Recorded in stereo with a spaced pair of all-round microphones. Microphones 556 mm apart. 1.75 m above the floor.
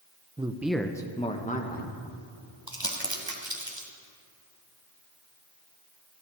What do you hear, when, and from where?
0.4 s a man speaking: 10° right (ahead or behind), 0.8 m; by 2.0 s 15° left (ahead or behind), 1.9 m
2.7 s crumpling: 35° right (ahead or behind), 2 m